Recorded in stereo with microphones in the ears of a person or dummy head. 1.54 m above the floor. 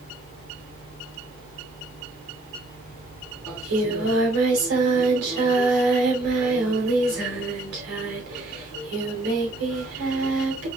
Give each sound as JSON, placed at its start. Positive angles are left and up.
{"t": 0.0, "sound": "a fan", "side_deg": -20, "distance_m": 3.0}
{"t": 3.5, "sound": "singing", "side_deg": -65, "distance_m": 2.5}